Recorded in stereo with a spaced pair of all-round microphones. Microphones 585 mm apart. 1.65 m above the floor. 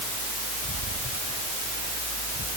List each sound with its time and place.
Only background noise.